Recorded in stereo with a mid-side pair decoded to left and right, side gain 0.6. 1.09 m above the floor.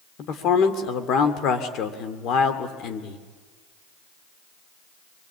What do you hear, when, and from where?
0.2 s a man speaking: 55° left, 2.5 m